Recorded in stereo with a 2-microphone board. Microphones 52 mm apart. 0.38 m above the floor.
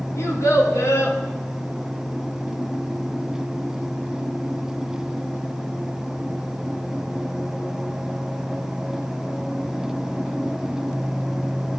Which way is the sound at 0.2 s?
65° left (ahead or behind).